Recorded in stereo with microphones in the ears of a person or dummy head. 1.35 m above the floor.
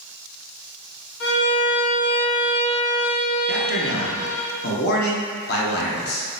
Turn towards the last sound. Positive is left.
turn(degrees=55)  # may be behind; listen again after turning